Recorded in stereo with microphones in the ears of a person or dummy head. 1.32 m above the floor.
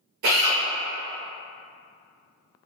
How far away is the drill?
About 0.8 m.